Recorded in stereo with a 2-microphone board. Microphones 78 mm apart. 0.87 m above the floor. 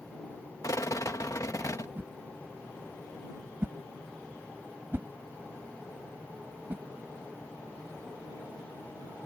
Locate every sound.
0.6 s a rattle: 45° left (ahead or behind)
2.0 s a whoosh: 25° right (ahead or behind)